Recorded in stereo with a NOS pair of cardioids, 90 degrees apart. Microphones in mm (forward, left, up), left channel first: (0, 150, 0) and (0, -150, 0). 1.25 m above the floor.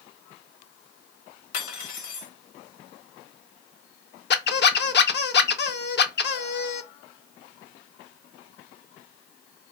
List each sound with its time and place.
1.5 s cutlery clinking: 65° left, 1.1 m
4.3 s a squeak: 40° left, 0.6 m